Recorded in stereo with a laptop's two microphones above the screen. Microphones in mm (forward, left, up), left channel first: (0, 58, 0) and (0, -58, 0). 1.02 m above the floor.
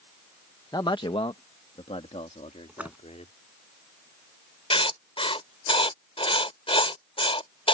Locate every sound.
0.7 s a man speaking: 35° left (ahead or behind); by 3.3 s 75° left (ahead or behind)
2.7 s a splash: 15° right (ahead or behind)
4.7 s writing: 55° left (ahead or behind)